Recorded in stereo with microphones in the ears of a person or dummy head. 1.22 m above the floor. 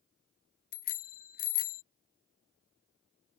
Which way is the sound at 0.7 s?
45° left (ahead or behind).